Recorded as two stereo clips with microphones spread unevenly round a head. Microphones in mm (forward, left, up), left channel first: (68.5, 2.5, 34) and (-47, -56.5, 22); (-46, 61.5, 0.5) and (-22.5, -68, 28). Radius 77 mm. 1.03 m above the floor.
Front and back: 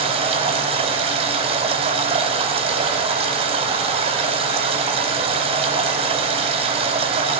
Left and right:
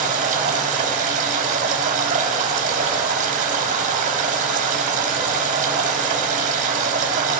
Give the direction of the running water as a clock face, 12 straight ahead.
4 o'clock.